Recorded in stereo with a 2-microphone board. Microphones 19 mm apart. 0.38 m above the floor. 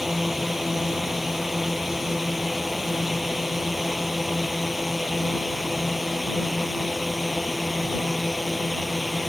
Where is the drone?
10° right (ahead or behind); by 9.3 s 5° left (ahead or behind).